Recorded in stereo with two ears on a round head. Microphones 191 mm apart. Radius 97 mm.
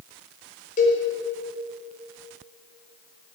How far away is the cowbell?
About 3.5 m.